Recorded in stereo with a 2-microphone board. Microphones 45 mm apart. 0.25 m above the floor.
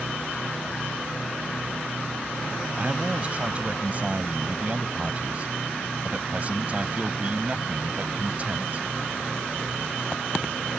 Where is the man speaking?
35° right (ahead or behind).